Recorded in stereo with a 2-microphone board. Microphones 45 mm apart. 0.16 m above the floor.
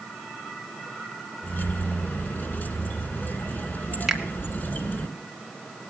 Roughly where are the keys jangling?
Left.